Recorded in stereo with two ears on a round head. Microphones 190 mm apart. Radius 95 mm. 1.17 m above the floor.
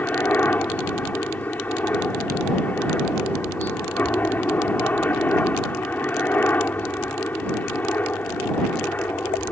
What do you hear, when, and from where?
0.0 s a helicopter: 10° left (ahead or behind)